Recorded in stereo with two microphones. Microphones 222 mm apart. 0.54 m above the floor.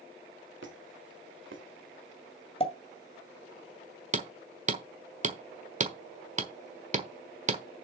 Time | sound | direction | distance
0.6 | a squeak | 60° right (ahead or behind) | 1.6 m
2.6 | a pop | 25° left (ahead or behind) | 1.7 m
4.1 | hammering | 35° right (ahead or behind) | 1.3 m